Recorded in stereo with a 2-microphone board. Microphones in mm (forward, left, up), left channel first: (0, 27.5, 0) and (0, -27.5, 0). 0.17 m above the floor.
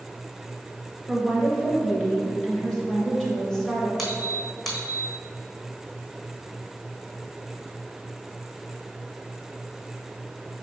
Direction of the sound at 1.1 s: 10° left (ahead or behind).